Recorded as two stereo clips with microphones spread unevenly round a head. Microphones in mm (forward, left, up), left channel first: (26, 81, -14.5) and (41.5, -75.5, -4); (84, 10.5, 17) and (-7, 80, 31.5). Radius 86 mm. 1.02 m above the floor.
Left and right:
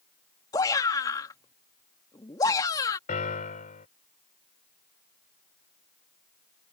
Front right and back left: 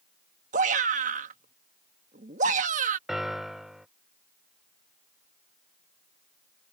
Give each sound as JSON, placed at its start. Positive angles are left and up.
{"t": 0.5, "sound": "a shout", "azimuth_deg": 165}
{"t": 3.1, "sound": "a piano", "azimuth_deg": 55}